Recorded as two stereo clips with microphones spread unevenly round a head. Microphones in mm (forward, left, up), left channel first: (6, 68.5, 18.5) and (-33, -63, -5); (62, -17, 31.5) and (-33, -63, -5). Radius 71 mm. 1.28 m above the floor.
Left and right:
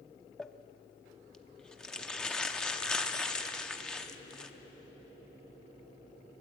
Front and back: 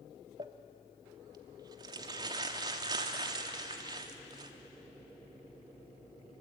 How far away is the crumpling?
About 0.8 m.